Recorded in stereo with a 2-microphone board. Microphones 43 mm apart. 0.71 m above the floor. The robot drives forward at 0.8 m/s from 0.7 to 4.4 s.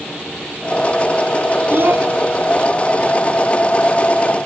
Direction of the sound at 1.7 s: 55° right (ahead or behind).